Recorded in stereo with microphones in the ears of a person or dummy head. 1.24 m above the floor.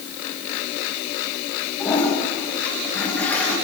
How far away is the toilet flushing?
About 7.5 m.